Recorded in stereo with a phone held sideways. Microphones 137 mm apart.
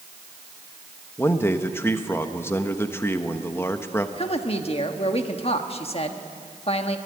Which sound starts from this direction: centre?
A man speaking, at 1.2 s.